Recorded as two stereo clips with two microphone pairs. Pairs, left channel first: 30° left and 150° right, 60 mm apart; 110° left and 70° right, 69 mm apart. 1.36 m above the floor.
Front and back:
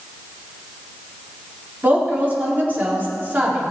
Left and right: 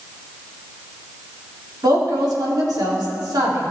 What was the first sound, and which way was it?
A woman speaking, 90° right.